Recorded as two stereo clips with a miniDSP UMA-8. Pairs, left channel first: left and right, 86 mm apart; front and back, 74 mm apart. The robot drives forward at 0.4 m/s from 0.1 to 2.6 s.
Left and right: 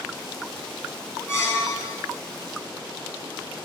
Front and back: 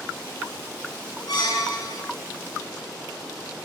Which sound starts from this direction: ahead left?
A squeak, at 1.3 s.